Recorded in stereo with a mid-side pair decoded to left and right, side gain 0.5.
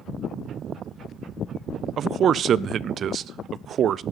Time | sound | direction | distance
2.0 | a man speaking | 55° right | 0.5 m